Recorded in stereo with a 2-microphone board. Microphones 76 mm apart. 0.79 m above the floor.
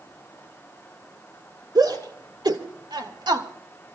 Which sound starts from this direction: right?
A shout, at 1.8 s.